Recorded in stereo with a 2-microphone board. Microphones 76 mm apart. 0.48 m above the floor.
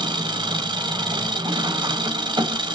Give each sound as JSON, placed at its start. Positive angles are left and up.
{"t": 0.0, "sound": "an engine running", "side_deg": -90, "distance_m": 0.7}